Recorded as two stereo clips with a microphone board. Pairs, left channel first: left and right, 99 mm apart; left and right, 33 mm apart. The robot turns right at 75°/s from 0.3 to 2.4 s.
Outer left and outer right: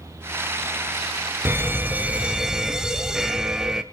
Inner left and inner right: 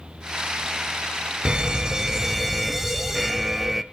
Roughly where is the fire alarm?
Right.